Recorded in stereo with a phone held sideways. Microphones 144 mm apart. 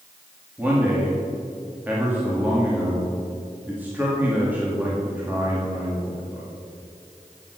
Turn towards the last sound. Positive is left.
turn(degrees=-15)  # may be behind; listen again after turning